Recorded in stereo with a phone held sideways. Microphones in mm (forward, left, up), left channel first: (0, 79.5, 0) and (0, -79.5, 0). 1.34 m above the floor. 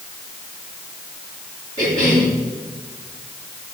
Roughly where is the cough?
Right.